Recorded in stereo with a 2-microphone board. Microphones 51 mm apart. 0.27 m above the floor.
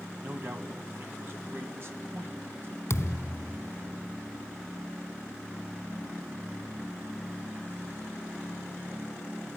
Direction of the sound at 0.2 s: 50° right (ahead or behind).